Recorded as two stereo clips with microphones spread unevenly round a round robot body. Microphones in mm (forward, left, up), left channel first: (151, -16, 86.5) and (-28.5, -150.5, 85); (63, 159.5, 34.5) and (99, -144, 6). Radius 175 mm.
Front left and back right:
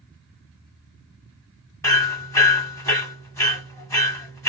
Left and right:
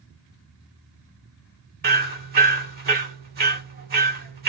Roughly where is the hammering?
Ahead right.